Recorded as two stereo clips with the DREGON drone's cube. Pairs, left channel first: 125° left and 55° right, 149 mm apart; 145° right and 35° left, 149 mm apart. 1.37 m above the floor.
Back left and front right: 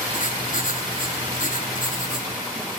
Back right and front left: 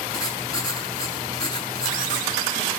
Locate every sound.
0.1 s writing: 150° left, 6.5 m